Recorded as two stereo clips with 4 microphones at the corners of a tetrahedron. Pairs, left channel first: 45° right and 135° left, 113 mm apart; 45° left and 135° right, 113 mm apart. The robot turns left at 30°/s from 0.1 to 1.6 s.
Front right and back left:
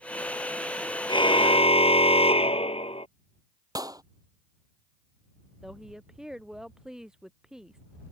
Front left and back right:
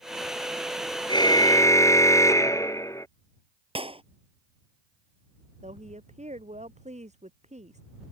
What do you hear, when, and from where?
1.1 s a car horn: straight ahead; by 3.1 s 20° right
3.8 s a clap: 170° right
5.6 s a woman speaking: 140° right